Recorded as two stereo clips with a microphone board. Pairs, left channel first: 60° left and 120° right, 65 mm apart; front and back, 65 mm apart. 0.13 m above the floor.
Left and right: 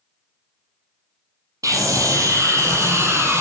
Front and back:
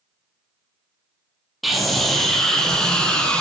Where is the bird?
I don't hear a bird.